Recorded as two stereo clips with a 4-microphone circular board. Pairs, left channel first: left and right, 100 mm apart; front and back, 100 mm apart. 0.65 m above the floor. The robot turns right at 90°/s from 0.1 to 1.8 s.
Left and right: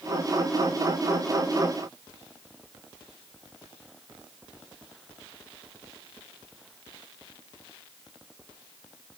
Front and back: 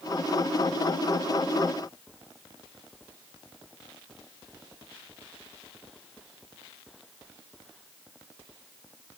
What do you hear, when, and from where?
Only background noise.